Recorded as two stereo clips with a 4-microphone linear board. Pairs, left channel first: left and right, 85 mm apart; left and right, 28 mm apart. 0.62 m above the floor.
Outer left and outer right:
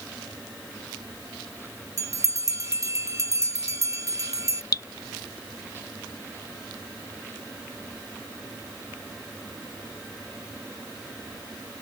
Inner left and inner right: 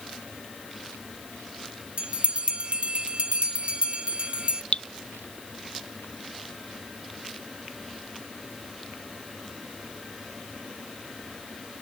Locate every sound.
2.0 s a bell: 40° right (ahead or behind)
4.7 s dripping: 50° left (ahead or behind)